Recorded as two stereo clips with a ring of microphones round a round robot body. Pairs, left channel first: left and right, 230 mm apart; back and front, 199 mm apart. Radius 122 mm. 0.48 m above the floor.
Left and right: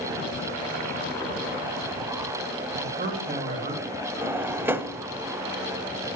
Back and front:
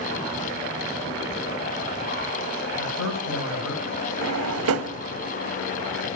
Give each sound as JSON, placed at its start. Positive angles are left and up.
{"t": 2.8, "sound": "a man speaking", "azimuth_deg": -140, "distance_m": 3.0}
{"t": 4.2, "sound": "a drawer", "azimuth_deg": -10, "distance_m": 0.5}